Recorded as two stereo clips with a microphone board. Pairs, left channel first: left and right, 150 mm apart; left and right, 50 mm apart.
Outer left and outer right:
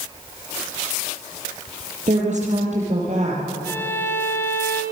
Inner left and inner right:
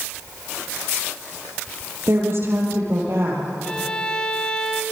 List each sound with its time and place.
2.1 s a woman speaking: 50° right (ahead or behind), 7.5 m
3.6 s a violin: 15° left (ahead or behind), 2 m